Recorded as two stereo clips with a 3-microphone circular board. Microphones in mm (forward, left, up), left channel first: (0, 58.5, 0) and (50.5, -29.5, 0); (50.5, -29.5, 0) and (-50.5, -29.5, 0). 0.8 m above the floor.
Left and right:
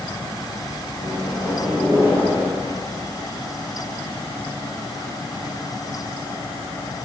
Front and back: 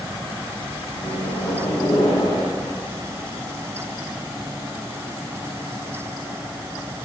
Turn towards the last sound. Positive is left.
turn(degrees=10)